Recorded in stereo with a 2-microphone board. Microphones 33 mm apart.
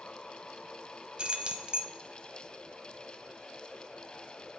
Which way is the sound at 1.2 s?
30° right (ahead or behind).